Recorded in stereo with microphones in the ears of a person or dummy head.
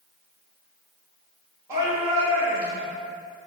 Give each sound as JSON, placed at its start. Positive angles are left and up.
{"t": 1.7, "sound": "a shout", "side_deg": -15, "distance_m": 2.0}